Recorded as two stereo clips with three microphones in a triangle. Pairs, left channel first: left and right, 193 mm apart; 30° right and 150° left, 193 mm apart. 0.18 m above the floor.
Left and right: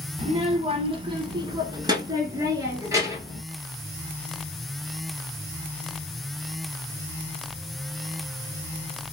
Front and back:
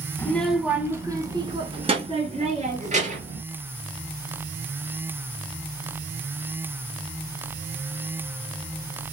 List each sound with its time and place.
0.2 s a child speaking: 100° right, 0.8 m; by 3.4 s 165° right, 2.0 m